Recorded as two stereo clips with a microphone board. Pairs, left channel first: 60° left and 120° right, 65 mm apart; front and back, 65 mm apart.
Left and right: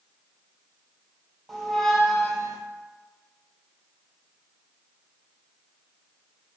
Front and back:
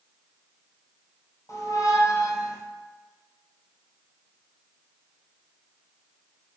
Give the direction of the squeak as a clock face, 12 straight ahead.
1 o'clock.